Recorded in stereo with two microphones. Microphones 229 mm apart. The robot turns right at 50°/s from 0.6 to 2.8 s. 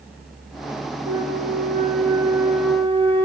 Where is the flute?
75° right, 8.5 m; by 3.3 s 10° left, 8.5 m.